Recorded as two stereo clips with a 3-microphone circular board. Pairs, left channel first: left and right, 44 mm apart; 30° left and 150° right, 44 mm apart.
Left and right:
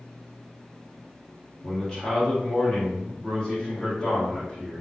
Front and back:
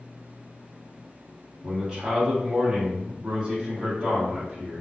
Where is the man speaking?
160° left, 1.3 m.